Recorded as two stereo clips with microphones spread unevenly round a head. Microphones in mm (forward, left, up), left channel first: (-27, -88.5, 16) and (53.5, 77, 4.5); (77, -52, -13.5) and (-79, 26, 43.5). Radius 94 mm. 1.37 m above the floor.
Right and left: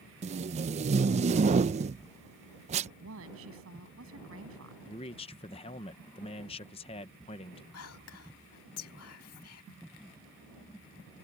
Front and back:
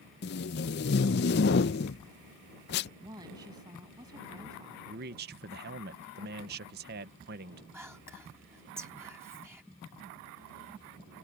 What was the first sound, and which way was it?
Tape being pulled, 15° left.